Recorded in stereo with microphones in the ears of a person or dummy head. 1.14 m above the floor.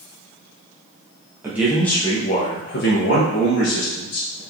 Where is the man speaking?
10° right (ahead or behind), 0.7 m; by 4.4 s 70° left (ahead or behind), 1.5 m.